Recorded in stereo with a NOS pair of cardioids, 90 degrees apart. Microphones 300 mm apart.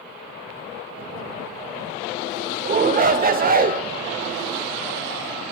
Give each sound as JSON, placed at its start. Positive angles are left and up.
{"t": 2.6, "sound": "a shout", "azimuth_deg": -30, "distance_m": 0.9}